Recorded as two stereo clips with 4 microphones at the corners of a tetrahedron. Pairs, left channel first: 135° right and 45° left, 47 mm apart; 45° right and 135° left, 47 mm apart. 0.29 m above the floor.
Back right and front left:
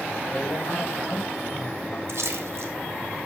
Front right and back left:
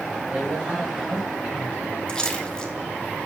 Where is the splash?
30° left, 1.4 m.